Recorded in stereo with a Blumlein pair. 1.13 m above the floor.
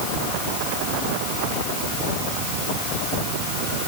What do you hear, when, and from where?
Only background noise.